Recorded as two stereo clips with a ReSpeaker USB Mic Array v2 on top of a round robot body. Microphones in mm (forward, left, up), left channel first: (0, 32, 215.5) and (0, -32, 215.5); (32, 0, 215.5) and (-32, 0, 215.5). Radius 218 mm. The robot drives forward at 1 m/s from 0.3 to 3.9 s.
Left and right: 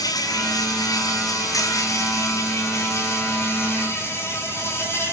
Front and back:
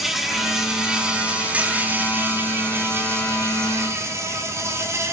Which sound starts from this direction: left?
An insect, at 0.0 s.